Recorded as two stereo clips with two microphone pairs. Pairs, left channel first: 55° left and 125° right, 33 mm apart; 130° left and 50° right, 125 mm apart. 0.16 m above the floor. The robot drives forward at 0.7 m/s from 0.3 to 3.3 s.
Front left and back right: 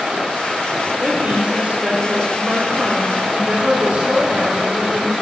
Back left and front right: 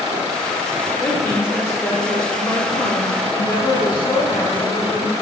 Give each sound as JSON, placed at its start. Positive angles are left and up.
{"t": 1.0, "sound": "a woman speaking", "azimuth_deg": -160, "distance_m": 4.0}